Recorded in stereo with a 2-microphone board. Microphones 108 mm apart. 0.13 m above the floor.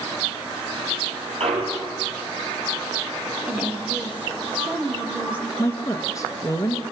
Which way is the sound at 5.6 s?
30° left (ahead or behind).